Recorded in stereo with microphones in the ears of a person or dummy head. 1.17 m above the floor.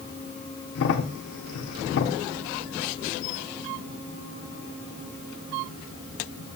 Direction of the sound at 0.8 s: 60° left (ahead or behind).